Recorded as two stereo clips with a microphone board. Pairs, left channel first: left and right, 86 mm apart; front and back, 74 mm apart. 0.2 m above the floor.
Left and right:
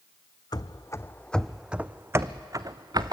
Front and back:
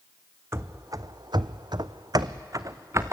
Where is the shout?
No shout in this recording.